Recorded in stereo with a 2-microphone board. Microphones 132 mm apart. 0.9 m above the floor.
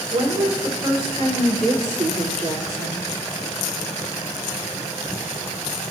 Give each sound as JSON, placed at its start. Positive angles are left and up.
{"t": 0.1, "sound": "a woman speaking", "side_deg": -80, "distance_m": 3.5}